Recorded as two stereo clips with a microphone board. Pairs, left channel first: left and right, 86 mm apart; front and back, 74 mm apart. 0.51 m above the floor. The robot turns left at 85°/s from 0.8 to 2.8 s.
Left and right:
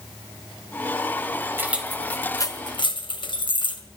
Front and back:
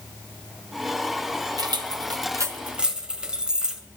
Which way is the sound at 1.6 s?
155° right.